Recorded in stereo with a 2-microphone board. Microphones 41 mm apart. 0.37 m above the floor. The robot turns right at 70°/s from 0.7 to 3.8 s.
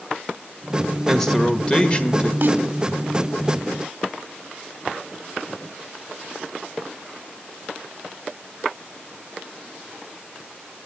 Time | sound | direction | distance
1.1 | a man speaking | 5° left | 1.3 m
2.4 | a snare drum | 60° right (ahead or behind) | 1.7 m